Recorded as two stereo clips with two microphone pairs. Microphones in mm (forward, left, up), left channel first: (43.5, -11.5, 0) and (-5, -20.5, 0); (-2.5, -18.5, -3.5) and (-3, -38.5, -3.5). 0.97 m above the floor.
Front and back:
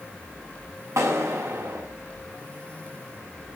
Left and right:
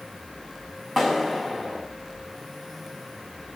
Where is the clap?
170° right, 6 m.